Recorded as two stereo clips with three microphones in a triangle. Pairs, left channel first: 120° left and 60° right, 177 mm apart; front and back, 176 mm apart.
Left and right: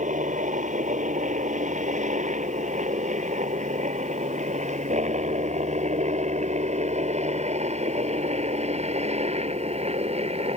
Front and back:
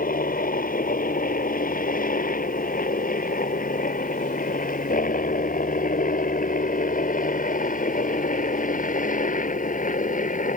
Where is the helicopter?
25° right; by 10.6 s 20° right.